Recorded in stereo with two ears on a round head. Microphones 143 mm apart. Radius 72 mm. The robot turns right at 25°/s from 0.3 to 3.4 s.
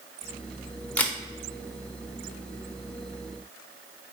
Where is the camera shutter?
10° left (ahead or behind), 0.5 m; by 1.2 s 5° left (ahead or behind), 0.5 m.